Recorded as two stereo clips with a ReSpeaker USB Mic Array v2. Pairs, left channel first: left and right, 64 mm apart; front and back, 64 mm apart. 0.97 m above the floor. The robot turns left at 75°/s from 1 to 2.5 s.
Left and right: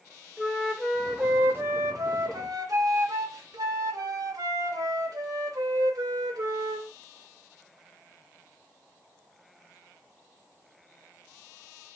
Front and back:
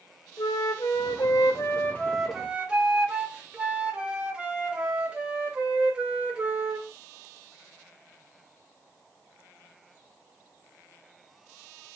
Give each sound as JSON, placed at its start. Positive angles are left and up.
{"t": 0.4, "sound": "a flute", "azimuth_deg": 5, "distance_m": 0.7}